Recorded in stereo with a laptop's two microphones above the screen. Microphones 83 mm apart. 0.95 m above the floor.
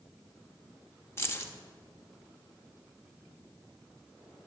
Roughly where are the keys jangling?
Left.